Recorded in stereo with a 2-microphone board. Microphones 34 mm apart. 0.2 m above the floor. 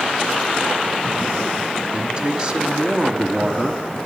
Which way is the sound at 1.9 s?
25° right (ahead or behind).